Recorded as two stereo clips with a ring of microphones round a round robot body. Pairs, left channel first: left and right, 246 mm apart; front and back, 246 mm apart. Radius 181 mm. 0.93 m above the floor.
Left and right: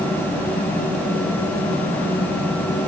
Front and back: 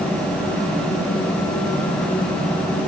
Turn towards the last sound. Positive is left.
No sound to turn to.